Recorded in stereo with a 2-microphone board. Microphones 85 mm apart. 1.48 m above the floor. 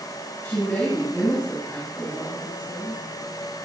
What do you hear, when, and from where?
0.4 s a woman speaking: 25° left (ahead or behind), 10 m